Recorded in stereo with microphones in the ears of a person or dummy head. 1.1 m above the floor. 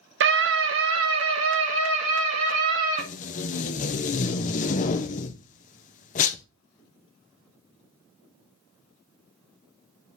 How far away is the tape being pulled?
About 0.6 m.